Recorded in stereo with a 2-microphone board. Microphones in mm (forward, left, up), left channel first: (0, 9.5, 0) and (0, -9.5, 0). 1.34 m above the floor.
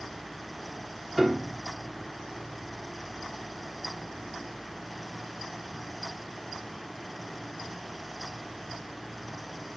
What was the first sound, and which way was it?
A piano, 30° right (ahead or behind).